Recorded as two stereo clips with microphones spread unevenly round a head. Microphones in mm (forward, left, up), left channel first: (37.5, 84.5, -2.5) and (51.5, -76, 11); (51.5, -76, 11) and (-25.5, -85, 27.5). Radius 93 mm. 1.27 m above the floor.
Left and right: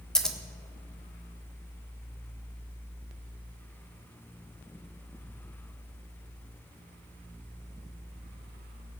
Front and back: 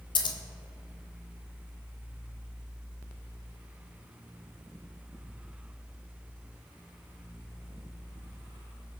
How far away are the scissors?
About 1.4 m.